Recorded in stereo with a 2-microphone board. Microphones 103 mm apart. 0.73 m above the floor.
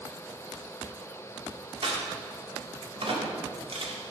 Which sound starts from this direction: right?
A crack, at 1.8 s.